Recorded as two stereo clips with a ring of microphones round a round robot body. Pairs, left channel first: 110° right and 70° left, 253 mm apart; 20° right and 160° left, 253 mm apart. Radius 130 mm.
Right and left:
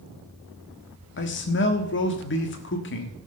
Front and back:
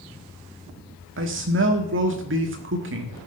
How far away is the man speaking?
About 1.5 m.